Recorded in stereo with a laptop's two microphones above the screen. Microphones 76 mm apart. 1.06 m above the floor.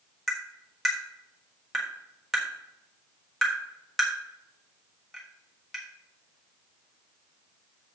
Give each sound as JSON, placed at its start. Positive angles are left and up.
{"t": 0.3, "sound": "tapping", "side_deg": 0, "distance_m": 1.3}